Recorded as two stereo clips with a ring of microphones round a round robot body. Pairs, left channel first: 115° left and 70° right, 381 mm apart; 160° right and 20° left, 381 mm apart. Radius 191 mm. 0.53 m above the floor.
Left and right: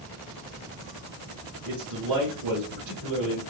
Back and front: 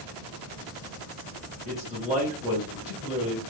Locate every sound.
1.6 s a man speaking: 50° right, 2 m